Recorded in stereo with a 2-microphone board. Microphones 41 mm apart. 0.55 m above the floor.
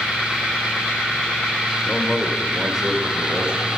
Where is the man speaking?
20° left (ahead or behind), 1.9 m; by 3.7 s 30° right (ahead or behind), 3 m.